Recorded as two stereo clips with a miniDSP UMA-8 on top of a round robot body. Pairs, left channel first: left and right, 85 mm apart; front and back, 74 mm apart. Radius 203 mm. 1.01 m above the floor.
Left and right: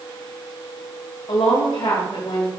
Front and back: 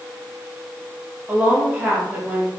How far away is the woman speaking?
About 2 m.